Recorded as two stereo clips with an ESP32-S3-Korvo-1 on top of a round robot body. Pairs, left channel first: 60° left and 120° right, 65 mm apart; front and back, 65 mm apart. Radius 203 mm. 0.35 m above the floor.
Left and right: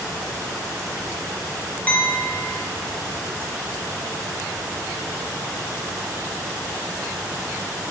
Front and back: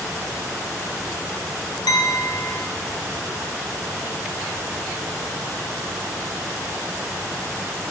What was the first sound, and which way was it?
A clink, 5° right.